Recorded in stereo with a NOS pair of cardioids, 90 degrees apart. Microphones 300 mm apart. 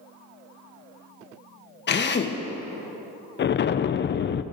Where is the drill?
35° left, 1.2 m.